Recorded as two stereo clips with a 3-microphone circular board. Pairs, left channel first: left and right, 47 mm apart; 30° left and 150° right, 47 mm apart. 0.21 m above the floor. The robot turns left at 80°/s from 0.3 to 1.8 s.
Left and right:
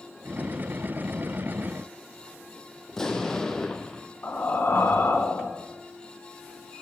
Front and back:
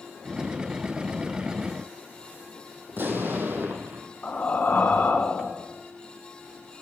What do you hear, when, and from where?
2.9 s an explosion: 170° left, 1.2 m
4.2 s breathing: 70° left, 1.6 m